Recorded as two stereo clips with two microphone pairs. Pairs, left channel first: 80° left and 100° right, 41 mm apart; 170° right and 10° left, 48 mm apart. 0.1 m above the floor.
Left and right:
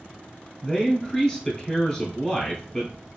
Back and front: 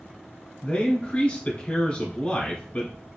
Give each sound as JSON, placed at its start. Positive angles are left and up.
{"t": 0.6, "sound": "a man speaking", "azimuth_deg": 150, "distance_m": 1.3}